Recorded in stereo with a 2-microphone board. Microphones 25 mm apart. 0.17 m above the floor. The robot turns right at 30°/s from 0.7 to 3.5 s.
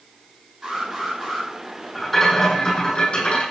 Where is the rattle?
10° left, 8 m; by 3.4 s 55° left, 8 m.